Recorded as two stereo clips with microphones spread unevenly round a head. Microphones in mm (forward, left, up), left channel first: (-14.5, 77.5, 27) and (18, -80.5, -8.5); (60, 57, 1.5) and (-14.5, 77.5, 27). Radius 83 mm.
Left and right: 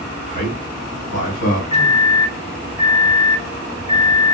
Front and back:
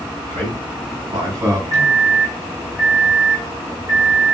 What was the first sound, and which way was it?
A man speaking, 150° left.